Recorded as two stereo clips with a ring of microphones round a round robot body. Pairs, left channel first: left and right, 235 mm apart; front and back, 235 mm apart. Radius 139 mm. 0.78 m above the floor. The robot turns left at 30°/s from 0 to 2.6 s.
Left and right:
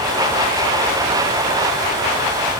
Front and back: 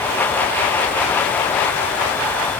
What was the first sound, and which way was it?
Only background noise.